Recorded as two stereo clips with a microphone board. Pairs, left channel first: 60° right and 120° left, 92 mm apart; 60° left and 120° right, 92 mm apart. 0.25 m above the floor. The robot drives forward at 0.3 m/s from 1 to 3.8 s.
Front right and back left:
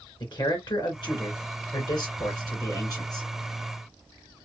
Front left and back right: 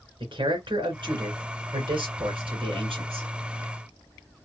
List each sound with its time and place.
0.2 s a man speaking: 90° right, 2.5 m; by 3.2 s 105° right, 2.5 m